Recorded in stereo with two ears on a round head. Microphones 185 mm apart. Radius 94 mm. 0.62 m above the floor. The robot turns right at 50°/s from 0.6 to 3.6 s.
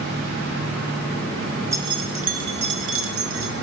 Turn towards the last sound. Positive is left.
turn(degrees=-70)